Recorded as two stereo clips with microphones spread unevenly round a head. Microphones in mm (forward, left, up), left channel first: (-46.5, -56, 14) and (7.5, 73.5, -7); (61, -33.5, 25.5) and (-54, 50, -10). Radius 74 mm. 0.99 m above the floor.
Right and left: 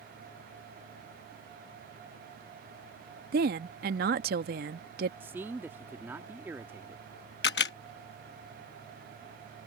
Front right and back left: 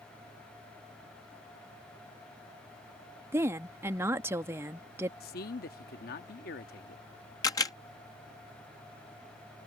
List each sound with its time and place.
3.3 s a woman speaking: 75° left
5.2 s a man speaking: 10° right
7.4 s a camera shutter: 105° right